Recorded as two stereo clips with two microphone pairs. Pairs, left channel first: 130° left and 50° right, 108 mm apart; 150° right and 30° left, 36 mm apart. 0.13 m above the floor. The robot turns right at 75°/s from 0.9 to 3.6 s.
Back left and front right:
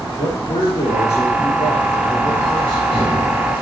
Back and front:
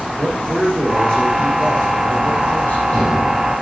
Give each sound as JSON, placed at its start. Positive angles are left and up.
{"t": 0.2, "sound": "a man speaking", "azimuth_deg": 120, "distance_m": 6.0}